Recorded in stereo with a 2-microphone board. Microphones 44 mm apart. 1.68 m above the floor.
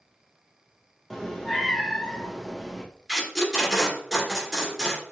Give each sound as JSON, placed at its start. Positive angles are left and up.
{"t": 1.1, "sound": "a cat meowing", "side_deg": 5, "distance_m": 0.9}
{"t": 3.1, "sound": "tape being pulled", "side_deg": -10, "distance_m": 2.5}